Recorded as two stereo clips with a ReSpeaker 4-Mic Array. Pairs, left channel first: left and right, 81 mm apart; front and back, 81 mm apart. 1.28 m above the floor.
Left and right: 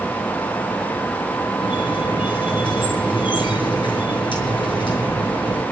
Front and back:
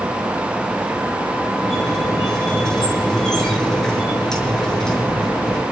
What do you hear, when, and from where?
1.6 s a squeak: 80° left, 6 m